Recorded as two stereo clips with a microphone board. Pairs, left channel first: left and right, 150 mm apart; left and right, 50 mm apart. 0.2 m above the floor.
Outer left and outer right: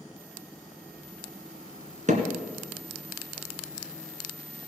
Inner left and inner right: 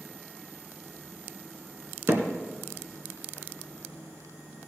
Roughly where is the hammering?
Right.